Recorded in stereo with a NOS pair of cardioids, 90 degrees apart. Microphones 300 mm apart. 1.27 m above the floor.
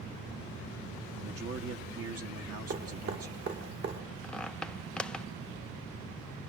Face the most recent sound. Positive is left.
turn(degrees=5)